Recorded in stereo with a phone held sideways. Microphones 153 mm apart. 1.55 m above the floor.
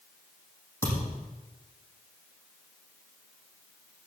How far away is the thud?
About 7 m.